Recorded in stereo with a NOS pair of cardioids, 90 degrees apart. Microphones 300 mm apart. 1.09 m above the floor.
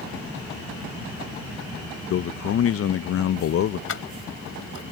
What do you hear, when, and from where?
2.1 s a man speaking: 50° left
3.9 s keys jangling: 45° left